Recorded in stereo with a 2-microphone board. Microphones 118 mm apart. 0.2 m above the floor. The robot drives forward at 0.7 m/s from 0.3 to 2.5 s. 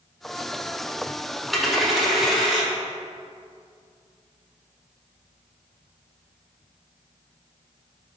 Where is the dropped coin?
Centre (ahead or behind), 0.6 m.